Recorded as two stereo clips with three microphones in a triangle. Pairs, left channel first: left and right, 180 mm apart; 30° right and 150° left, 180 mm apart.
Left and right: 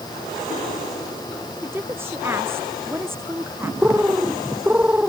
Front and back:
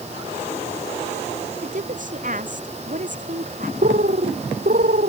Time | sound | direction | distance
1.6 | a woman speaking | 165° right | ?
3.8 | a bird | 170° right | ?